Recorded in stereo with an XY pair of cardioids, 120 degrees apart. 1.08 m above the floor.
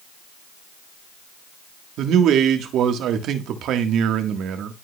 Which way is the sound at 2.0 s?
70° right.